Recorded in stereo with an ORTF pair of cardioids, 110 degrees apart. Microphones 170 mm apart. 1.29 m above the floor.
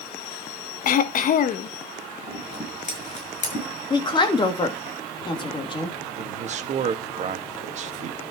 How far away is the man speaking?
About 1.8 m.